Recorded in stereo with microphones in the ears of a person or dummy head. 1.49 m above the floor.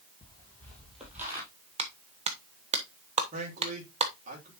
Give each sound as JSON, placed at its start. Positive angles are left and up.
{"t": 0.2, "sound": "footsteps", "side_deg": 25, "distance_m": 2.5}
{"t": 1.8, "sound": "a clap", "side_deg": -30, "distance_m": 0.9}
{"t": 3.3, "sound": "a man speaking", "side_deg": -45, "distance_m": 2.5}